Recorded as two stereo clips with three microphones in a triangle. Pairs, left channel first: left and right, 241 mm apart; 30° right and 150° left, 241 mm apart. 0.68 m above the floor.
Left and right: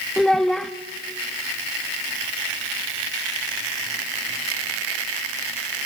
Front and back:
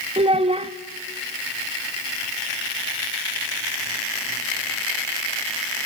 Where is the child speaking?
175° left, 0.6 m.